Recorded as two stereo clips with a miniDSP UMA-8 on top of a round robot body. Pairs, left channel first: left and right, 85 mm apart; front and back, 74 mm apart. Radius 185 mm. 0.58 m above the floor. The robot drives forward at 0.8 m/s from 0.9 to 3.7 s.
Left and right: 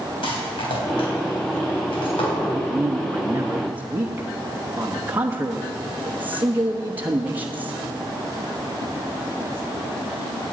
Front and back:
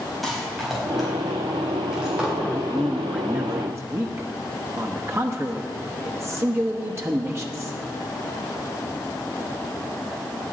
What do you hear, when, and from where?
0.2 s a rattle: 90° left, 4.5 m; by 2.3 s 105° left, 4.5 m
2.4 s a man speaking: 45° right, 1.1 m; by 7.8 s 150° right, 1.2 m